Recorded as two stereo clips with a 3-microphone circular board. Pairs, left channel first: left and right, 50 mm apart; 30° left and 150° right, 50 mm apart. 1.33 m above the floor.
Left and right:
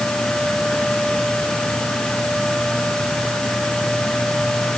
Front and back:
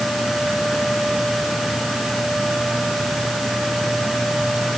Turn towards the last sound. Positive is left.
No sound to turn to.